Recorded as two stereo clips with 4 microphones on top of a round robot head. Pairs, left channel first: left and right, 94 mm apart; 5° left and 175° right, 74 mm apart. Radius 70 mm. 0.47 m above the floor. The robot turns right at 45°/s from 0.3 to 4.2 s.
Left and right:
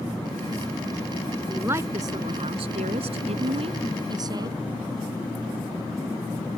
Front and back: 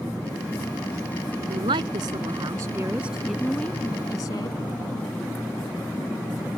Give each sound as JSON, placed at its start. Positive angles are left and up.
{"t": 1.5, "sound": "a woman speaking", "azimuth_deg": -170}